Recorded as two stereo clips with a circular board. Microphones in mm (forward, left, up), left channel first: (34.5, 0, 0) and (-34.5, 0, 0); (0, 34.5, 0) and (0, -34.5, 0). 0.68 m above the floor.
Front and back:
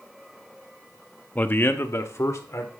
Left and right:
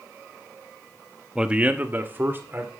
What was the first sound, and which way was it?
A man speaking, 25° right.